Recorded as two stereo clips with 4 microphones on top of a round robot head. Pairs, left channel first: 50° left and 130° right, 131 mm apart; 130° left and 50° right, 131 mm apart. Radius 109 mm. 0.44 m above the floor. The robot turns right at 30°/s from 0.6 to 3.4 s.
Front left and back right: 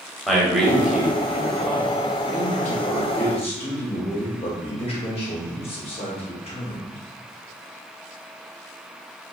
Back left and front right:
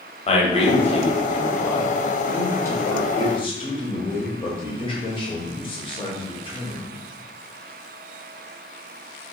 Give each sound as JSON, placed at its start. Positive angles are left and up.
{"t": 0.3, "sound": "a man speaking", "azimuth_deg": 140, "distance_m": 1.2}
{"t": 2.3, "sound": "a man speaking", "azimuth_deg": 55, "distance_m": 1.7}